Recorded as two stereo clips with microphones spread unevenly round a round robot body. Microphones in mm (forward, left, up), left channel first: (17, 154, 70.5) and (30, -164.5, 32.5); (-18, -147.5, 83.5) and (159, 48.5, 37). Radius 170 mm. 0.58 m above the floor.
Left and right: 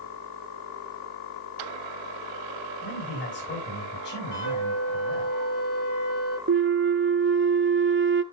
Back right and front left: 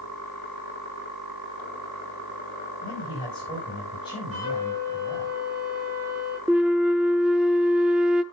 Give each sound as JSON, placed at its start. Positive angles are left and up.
{"t": 2.8, "sound": "a man speaking", "azimuth_deg": 150, "distance_m": 5.5}
{"t": 4.3, "sound": "a flute", "azimuth_deg": 95, "distance_m": 6.0}
{"t": 6.5, "sound": "a flute", "azimuth_deg": -35, "distance_m": 0.9}